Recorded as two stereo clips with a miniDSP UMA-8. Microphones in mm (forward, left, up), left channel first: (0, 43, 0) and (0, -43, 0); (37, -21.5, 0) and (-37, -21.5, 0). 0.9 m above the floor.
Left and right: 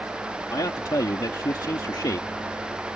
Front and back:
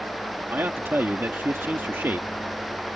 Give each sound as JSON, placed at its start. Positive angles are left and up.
{"t": 0.5, "sound": "a man speaking", "azimuth_deg": 125}